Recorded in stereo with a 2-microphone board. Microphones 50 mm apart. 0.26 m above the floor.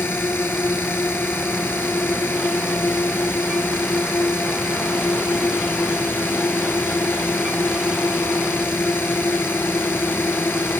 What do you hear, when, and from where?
0.0 s a drone: 45° left (ahead or behind)